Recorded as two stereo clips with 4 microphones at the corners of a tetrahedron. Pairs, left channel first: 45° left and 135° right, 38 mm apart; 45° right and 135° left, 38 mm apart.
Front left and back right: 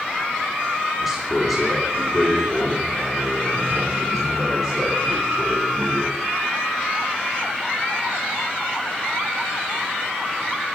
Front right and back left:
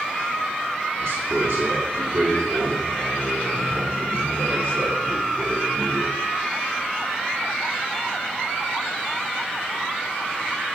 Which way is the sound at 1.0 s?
140° left.